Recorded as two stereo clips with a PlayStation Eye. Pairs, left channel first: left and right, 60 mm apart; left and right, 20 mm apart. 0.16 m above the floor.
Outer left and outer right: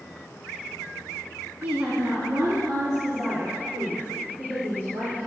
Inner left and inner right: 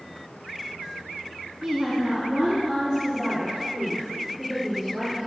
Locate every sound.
1.6 s a woman speaking: 35° right (ahead or behind), 1.2 m; by 5.3 s 75° right (ahead or behind), 3.5 m